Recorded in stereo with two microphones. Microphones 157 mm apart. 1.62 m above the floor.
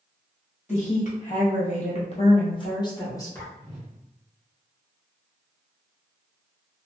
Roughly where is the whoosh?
Centre.